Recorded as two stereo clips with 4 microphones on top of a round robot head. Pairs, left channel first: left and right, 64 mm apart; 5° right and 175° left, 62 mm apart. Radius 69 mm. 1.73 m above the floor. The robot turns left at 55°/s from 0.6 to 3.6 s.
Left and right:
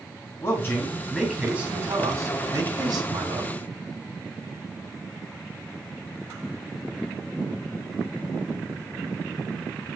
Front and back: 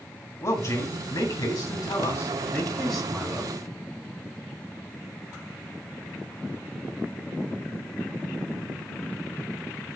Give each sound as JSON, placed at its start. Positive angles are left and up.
{"t": 0.4, "sound": "a man speaking", "azimuth_deg": 35, "distance_m": 2.5}